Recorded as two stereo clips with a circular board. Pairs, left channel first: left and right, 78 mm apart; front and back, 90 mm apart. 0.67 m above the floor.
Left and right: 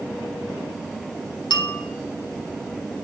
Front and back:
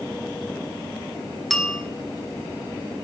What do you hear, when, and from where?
1.5 s a bell: 90° left, 0.9 m